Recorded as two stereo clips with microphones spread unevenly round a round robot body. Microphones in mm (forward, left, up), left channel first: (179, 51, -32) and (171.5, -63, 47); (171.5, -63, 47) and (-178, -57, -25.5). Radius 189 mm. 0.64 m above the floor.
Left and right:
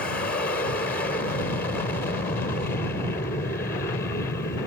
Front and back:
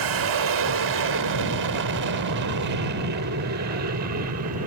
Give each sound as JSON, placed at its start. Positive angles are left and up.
{"t": 0.0, "sound": "an aircraft", "azimuth_deg": 140}